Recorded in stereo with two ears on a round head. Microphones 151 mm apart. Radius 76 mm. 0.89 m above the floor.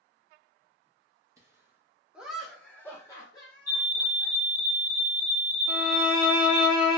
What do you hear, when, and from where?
1.4 s laughter: 20° right (ahead or behind), 1.0 m; by 4.3 s 30° left (ahead or behind), 1.2 m
3.7 s a fire alarm: 20° left (ahead or behind), 1.2 m
5.7 s a violin: 55° left (ahead or behind), 1.5 m